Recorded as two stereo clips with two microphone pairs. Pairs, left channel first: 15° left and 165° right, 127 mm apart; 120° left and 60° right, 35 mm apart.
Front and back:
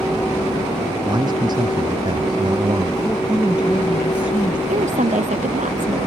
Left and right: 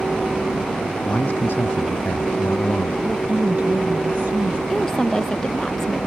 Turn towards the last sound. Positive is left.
turn(degrees=-165)